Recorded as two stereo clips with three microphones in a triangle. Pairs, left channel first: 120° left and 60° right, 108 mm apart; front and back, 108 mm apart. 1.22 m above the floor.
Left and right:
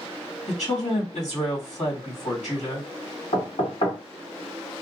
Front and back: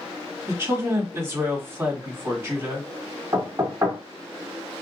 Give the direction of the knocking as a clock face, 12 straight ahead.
8 o'clock.